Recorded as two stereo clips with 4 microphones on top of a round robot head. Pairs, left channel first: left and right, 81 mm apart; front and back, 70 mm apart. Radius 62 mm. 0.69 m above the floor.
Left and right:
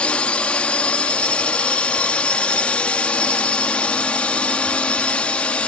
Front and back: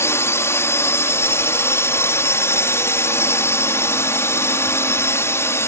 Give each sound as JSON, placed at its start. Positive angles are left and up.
{"t": 0.0, "sound": "a drone", "azimuth_deg": 20}